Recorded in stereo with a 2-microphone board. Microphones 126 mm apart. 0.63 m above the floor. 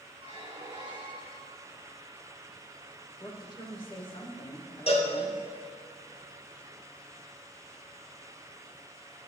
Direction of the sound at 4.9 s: 50° left (ahead or behind).